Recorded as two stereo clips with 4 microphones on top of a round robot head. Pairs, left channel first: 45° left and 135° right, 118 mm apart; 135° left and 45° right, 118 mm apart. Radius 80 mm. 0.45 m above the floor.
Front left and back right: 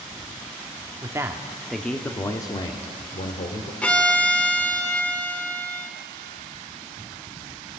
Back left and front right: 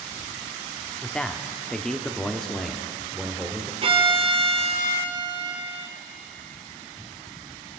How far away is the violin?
About 2 m.